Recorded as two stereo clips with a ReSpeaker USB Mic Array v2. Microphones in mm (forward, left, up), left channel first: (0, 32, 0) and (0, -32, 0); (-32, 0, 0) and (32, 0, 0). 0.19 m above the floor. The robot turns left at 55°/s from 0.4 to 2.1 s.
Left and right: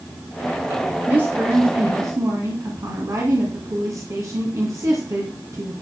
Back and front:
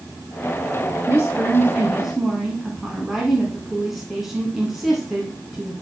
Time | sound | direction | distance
1.1 | a woman speaking | 30° right | 2 m